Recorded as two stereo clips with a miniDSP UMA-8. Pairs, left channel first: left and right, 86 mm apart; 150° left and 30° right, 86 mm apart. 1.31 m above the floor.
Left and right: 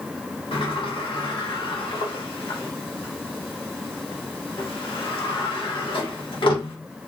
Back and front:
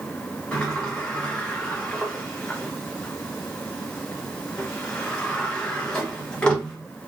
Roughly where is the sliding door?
Left.